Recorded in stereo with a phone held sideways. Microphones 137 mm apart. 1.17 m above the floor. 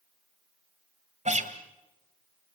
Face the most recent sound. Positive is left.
turn(degrees=-60)  # may be behind; listen again after turning